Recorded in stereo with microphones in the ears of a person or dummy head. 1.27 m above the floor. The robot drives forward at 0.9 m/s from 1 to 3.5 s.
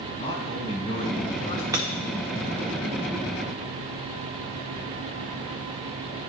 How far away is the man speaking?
About 3.5 m.